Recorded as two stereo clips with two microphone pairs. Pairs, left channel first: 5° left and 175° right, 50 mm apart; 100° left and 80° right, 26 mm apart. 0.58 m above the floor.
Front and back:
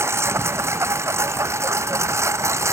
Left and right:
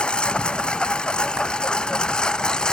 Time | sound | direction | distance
0.0 | a lawn mower | 150° left | ?